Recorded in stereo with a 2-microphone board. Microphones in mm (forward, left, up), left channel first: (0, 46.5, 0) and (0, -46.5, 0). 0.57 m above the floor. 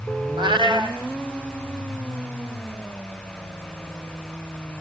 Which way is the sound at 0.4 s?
60° right (ahead or behind).